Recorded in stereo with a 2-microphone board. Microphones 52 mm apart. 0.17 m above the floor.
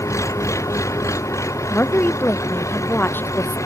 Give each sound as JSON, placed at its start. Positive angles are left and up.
{"t": 0.0, "sound": "an engine running", "side_deg": 80}
{"t": 1.7, "sound": "a woman speaking", "side_deg": 45}